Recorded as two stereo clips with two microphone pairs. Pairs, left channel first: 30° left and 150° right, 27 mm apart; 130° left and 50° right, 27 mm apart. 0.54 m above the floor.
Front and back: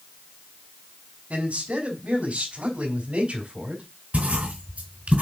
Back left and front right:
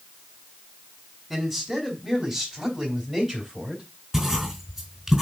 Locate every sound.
1.3 s a man speaking: 120° right, 3.5 m; by 3.8 s 95° right, 4 m
4.1 s writing: 115° right, 3.5 m